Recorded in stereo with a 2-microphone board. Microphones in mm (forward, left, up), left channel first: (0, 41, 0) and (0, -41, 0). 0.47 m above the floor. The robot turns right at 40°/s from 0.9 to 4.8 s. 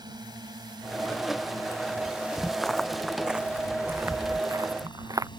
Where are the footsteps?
10° left (ahead or behind); by 5.3 s 45° right (ahead or behind).